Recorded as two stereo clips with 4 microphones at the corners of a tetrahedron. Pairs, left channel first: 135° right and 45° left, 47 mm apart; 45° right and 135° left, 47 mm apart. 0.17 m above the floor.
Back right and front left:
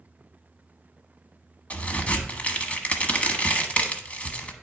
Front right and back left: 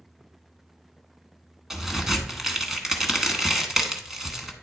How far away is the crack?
About 0.9 m.